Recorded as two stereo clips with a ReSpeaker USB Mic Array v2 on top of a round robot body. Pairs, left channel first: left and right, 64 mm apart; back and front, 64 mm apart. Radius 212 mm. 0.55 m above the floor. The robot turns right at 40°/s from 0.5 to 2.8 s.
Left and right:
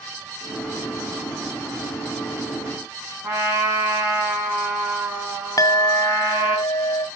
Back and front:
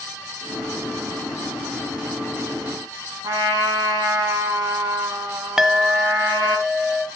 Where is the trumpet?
25° right, 2.5 m.